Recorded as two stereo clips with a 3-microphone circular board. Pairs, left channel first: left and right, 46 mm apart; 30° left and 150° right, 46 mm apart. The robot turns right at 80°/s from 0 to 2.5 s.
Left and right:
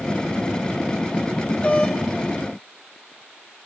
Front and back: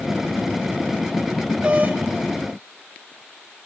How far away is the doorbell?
About 3 m.